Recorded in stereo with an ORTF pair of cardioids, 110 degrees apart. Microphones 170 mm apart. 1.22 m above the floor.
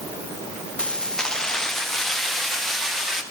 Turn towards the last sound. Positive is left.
turn(degrees=0)